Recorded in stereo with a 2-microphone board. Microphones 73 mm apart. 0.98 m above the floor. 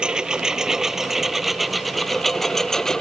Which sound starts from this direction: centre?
A lawn mower, at 0.0 s.